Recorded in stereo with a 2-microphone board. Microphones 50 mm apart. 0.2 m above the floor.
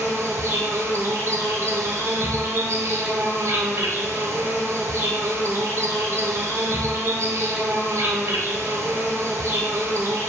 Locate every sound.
0.0 s an insect: 70° right (ahead or behind), 0.8 m